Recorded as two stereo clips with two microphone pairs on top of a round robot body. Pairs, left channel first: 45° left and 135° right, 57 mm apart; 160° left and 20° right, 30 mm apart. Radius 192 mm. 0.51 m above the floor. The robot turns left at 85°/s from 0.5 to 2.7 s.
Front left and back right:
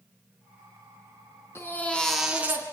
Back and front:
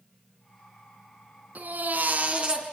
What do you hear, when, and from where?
1.6 s a baby crying: 5° left, 4 m; by 2.6 s 85° right, 4 m